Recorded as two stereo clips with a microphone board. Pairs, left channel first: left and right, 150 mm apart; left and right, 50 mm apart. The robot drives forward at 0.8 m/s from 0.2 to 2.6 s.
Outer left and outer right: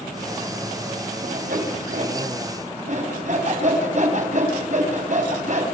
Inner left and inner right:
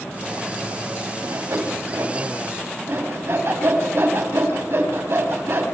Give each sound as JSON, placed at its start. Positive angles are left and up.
{"t": 1.2, "sound": "sawing", "side_deg": -70, "distance_m": 3.5}